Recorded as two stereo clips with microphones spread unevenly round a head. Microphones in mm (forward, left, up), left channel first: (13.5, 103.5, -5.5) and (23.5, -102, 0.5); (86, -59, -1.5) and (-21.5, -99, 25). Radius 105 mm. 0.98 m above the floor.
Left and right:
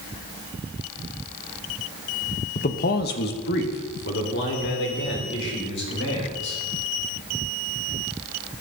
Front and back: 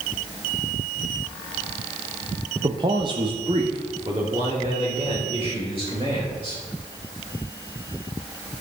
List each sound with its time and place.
2.5 s a man speaking: 135° left, 0.8 m